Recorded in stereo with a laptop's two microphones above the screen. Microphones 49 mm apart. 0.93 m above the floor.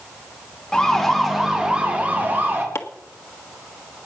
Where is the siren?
10° left (ahead or behind), 2 m; by 2.6 s 45° right (ahead or behind), 2.5 m.